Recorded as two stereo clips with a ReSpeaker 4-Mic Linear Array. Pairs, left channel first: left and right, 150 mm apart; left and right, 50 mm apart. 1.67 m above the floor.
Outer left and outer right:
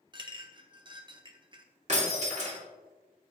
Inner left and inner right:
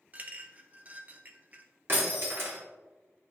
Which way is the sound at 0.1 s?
30° right (ahead or behind).